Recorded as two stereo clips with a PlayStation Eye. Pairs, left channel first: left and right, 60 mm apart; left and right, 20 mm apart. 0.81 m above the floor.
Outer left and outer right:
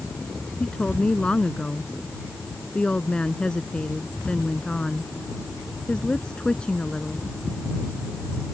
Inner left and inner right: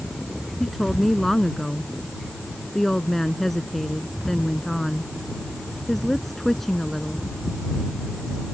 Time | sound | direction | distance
0.6 | a woman speaking | 15° left (ahead or behind) | ?